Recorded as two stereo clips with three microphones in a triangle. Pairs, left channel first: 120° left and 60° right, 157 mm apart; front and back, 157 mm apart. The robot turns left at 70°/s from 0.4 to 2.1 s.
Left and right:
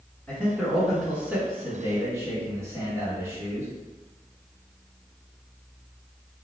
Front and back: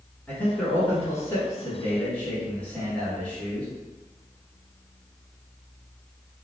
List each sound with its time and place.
0.3 s a man speaking: 55° left, 1.6 m; by 3.7 s 60° right, 1.6 m